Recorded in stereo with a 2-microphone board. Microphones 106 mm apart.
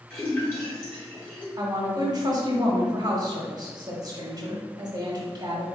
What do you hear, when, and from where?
0.1 s a splash: 20° left (ahead or behind), 1.7 m
1.6 s a woman speaking: 40° right (ahead or behind), 0.9 m